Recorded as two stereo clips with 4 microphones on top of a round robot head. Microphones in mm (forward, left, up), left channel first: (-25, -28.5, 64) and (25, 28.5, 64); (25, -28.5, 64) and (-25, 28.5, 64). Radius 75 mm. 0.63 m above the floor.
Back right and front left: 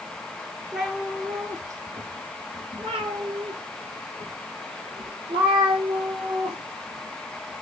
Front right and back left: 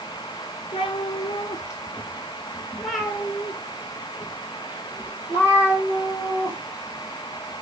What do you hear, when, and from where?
0.7 s a cat meowing: 40° right, 0.9 m; by 7.6 s 70° left, 3.5 m